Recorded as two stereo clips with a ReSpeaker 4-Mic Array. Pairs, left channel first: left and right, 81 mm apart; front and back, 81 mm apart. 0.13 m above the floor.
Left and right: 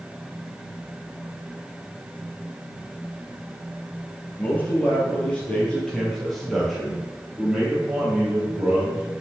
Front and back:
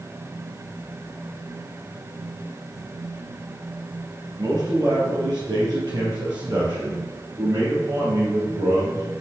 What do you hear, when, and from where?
4.4 s a man speaking: 155° left, 4 m; by 9.0 s 160° right, 4.5 m